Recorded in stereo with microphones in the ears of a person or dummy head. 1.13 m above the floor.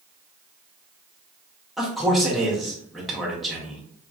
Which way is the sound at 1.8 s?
Centre (ahead or behind).